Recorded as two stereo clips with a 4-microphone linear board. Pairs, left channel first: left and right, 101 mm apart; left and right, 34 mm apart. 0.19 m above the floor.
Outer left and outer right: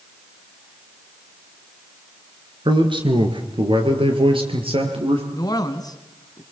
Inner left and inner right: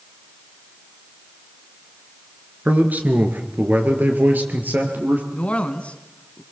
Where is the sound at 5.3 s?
40° left (ahead or behind), 1.9 m.